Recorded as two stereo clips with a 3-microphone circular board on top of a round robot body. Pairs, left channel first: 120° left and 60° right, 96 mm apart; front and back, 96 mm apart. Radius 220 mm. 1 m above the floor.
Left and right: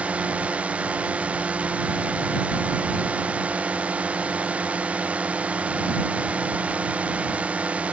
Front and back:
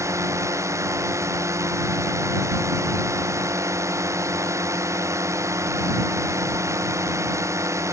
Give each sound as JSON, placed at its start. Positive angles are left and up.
{"t": 0.0, "sound": "a drone", "azimuth_deg": -130}